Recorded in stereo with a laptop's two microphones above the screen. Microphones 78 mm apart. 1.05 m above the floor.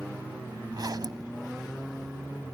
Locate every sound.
0.7 s a zipper: 60° right (ahead or behind)